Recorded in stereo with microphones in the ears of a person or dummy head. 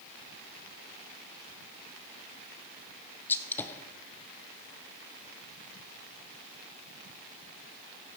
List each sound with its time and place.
3.3 s a gunshot: 10° left (ahead or behind), 0.8 m